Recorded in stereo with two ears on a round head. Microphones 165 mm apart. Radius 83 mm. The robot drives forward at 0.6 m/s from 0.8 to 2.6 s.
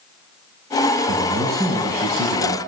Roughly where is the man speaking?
Right.